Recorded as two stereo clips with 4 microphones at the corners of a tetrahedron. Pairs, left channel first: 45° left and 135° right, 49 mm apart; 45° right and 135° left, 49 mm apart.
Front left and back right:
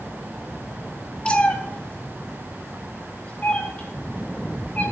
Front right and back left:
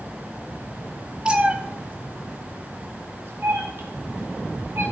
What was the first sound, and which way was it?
A cat meowing, 85° left.